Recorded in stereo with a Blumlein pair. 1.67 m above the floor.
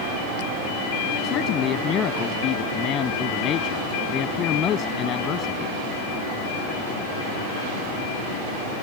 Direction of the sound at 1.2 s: 30° left.